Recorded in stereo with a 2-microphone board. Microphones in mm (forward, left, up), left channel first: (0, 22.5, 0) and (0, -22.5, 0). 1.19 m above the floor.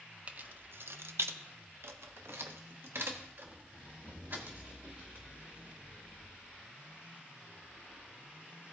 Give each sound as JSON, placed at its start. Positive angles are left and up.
{"t": 0.3, "sound": "keys jangling", "side_deg": -35, "distance_m": 0.6}